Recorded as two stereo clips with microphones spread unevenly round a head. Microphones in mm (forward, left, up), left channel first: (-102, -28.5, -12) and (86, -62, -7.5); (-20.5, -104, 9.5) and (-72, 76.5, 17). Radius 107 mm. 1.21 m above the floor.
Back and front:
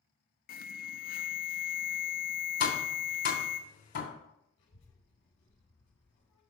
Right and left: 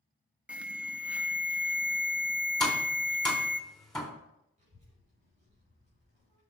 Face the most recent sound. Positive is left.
turn(degrees=160)